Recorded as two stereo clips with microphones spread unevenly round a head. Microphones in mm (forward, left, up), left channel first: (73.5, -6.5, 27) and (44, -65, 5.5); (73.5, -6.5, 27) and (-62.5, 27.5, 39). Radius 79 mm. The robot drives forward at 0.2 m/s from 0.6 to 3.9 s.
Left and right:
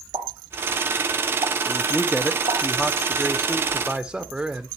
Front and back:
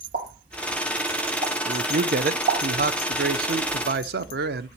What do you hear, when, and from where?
0.1 s a pop: 155° right, 5 m
1.6 s a man speaking: 130° left, 0.7 m; by 4.7 s 150° left, 1.0 m